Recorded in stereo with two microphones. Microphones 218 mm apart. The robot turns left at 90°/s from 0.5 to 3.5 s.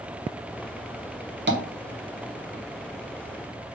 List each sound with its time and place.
1.5 s tapping: 55° right (ahead or behind), 1.0 m; by 1.6 s 45° right (ahead or behind), 1.0 m